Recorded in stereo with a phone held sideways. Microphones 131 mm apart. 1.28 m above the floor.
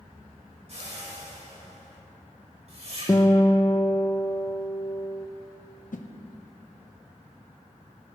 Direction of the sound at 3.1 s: 25° left (ahead or behind).